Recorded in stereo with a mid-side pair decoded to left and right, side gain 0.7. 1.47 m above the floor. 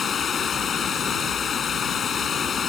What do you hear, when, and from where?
0.0 s running water: 30° left